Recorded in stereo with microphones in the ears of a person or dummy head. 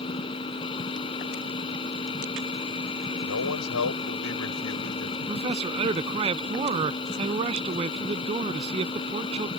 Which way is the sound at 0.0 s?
30° left (ahead or behind).